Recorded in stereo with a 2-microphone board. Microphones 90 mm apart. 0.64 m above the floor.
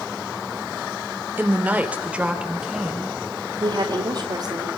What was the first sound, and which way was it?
A woman speaking, 20° right (ahead or behind).